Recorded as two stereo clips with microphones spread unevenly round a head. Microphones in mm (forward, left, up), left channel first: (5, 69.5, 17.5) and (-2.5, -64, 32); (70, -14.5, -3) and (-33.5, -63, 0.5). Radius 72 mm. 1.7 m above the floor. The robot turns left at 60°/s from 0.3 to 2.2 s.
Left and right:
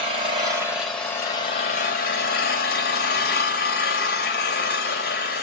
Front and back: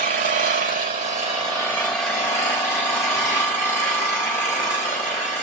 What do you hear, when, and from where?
0.0 s an engine running: 145° right, 3 m; by 5.4 s 100° left, 3 m